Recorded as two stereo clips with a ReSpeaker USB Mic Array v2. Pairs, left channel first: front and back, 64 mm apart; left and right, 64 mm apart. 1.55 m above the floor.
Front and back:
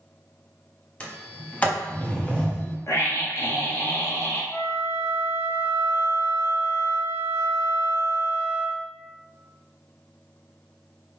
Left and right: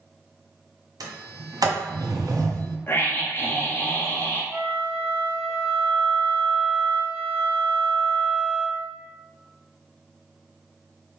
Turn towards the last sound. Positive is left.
turn(degrees=-20)